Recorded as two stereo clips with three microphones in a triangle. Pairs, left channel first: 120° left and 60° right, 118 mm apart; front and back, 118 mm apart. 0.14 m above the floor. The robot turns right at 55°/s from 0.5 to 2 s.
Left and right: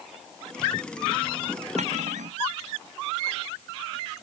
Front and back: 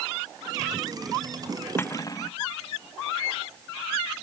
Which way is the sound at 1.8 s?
70° right.